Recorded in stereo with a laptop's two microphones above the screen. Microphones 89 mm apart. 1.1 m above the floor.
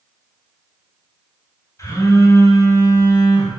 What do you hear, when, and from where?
1.8 s a phone buzzing: 40° left (ahead or behind), 4.5 m